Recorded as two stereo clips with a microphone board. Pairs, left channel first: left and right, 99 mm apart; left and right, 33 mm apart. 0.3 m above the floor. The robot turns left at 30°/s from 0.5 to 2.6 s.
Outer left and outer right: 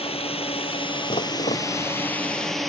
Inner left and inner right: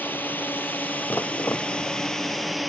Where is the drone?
70° left (ahead or behind); by 2.7 s centre (ahead or behind).